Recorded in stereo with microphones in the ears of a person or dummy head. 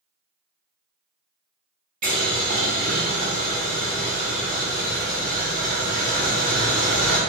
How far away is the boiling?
About 0.5 m.